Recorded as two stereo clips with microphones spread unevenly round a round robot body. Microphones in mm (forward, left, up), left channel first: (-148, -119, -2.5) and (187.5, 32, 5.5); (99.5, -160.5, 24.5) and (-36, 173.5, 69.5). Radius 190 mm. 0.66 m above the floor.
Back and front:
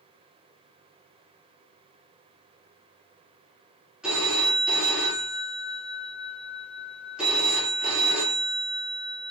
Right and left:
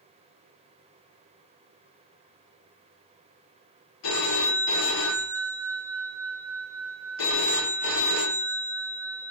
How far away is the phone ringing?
About 1.1 m.